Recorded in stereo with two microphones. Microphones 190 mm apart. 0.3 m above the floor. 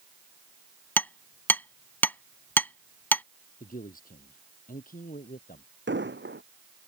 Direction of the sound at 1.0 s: 10° left (ahead or behind).